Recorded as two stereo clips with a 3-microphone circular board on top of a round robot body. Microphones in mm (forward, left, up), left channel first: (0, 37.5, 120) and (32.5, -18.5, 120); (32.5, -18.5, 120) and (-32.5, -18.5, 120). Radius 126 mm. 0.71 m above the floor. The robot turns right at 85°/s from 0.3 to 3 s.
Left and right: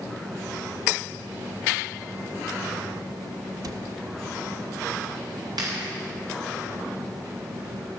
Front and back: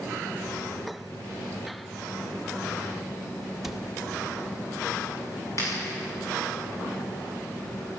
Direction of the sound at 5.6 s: 45° right.